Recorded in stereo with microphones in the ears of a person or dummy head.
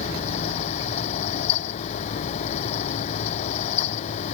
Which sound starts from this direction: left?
A fan, at 0.0 s.